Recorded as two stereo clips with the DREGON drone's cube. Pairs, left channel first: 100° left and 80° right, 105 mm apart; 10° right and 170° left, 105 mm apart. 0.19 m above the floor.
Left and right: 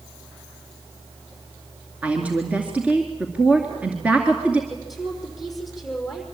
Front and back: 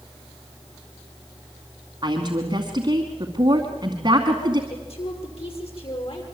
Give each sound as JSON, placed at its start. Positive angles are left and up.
{"t": 2.0, "sound": "a woman speaking", "azimuth_deg": -155, "distance_m": 2.5}
{"t": 4.7, "sound": "a woman speaking", "azimuth_deg": 10, "distance_m": 6.0}